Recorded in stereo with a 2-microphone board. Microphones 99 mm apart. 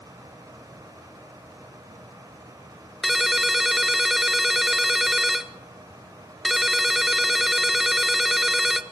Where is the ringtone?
5° right (ahead or behind), 0.8 m.